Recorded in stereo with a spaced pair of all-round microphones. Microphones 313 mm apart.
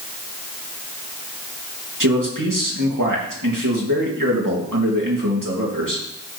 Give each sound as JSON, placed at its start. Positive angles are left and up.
{"t": 2.0, "sound": "a man speaking", "side_deg": -85, "distance_m": 3.0}